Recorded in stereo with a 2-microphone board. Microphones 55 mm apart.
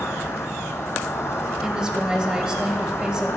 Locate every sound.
0.0 s an insect: 50° left (ahead or behind), 1.4 m
1.6 s a woman speaking: 15° right (ahead or behind), 1.0 m